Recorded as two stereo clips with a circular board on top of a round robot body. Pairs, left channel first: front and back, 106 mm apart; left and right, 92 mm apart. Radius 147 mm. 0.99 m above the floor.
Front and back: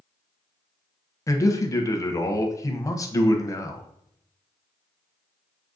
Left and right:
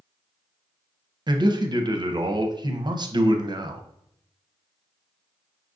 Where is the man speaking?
55° right, 0.8 m.